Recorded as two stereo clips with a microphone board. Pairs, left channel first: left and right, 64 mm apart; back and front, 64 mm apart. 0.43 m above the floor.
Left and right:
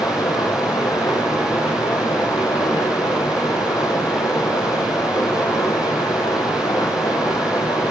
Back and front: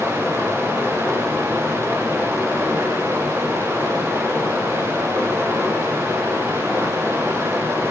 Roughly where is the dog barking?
I don't hear a dog barking.